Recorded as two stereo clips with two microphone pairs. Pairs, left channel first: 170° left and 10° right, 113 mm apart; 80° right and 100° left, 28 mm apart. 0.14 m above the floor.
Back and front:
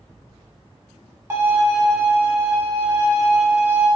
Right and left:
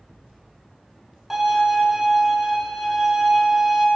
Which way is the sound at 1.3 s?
25° left.